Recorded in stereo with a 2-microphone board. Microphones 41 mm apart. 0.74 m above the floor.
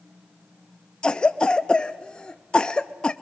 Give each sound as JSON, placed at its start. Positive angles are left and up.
{"t": 1.0, "sound": "a cough", "side_deg": 20, "distance_m": 0.5}